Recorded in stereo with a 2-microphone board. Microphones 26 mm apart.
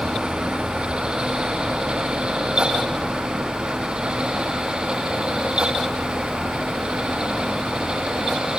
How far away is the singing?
No singing in this recording.